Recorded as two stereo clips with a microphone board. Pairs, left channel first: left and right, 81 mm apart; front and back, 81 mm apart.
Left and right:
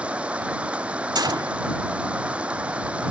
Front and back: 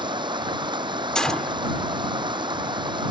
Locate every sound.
0.0 s running water: 165° right
1.1 s a gunshot: 80° right